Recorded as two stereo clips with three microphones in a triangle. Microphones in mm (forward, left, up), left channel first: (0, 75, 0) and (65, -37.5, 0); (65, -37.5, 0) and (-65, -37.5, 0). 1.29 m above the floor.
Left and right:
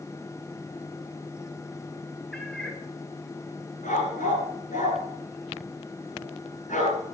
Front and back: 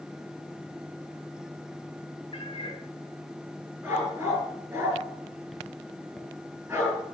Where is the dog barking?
105° left, 7 m.